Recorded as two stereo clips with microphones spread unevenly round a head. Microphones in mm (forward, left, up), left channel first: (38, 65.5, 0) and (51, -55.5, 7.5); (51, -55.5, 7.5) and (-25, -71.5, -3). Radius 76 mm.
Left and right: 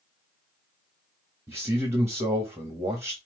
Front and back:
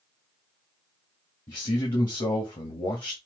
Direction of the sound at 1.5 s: 15° right.